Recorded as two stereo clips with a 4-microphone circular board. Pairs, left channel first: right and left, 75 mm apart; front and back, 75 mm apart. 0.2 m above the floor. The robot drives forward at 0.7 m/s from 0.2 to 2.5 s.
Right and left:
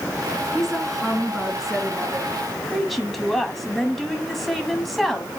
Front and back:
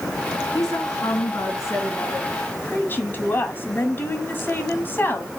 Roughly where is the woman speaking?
Ahead.